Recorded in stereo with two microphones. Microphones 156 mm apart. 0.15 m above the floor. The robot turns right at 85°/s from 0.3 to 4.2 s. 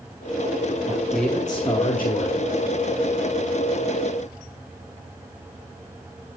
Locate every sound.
0.9 s a man speaking: 25° right, 3.5 m; by 2.5 s 110° left, 3.5 m